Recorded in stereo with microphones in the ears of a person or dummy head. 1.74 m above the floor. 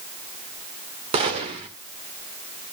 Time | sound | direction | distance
1.1 | a gunshot | 30° right (ahead or behind) | 2 m